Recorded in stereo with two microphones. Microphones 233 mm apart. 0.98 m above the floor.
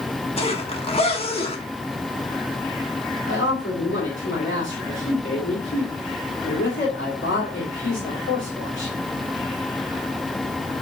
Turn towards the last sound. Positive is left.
turn(degrees=55)  # may be behind; listen again after turning